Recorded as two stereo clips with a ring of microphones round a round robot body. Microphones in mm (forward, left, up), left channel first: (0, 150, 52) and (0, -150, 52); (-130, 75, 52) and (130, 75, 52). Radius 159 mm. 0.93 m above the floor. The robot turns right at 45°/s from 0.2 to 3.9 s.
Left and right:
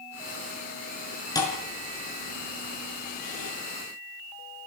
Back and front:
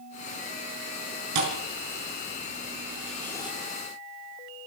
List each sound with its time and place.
1.4 s a thud: 10° left, 5 m; by 3.5 s 110° left, 5 m